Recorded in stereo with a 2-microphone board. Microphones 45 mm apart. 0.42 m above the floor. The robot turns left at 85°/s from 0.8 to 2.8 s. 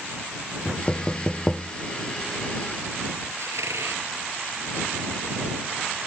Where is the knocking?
40° left (ahead or behind); by 1.7 s centre (ahead or behind).